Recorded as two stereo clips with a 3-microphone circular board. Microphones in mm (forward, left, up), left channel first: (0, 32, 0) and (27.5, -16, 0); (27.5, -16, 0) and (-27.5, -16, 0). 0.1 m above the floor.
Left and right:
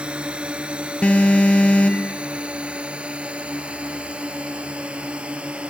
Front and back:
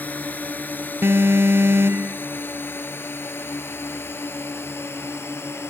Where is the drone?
10° right; by 5.7 s straight ahead.